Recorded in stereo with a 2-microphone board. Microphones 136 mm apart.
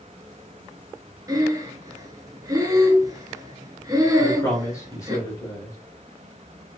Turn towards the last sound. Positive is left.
turn(degrees=20)  # may be behind; listen again after turning